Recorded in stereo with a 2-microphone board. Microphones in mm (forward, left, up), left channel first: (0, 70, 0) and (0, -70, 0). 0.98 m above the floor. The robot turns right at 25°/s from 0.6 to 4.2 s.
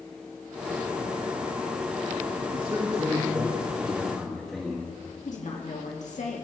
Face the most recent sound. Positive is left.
turn(degrees=60)  # may be behind; listen again after turning